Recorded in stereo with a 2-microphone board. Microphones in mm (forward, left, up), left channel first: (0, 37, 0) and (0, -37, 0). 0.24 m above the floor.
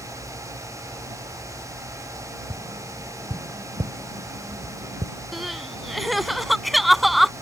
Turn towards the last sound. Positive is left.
turn(degrees=0)  # may be behind; listen again after turning